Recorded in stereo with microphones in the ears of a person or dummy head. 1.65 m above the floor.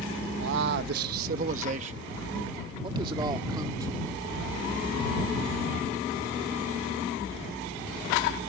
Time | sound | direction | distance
0.4 | a man speaking | 70° right (ahead or behind) | ?